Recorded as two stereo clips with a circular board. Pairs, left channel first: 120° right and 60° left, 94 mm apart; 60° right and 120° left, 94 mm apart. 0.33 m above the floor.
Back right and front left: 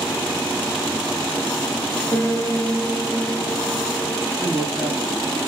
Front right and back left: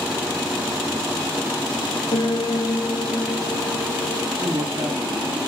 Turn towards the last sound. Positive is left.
turn(degrees=140)